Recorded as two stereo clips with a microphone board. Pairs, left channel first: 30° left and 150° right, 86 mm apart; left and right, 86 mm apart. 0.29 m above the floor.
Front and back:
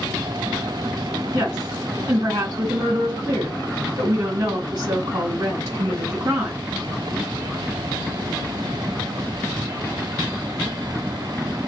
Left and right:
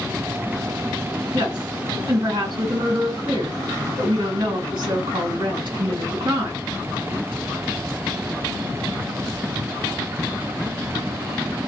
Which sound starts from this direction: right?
A woman speaking, at 1.3 s.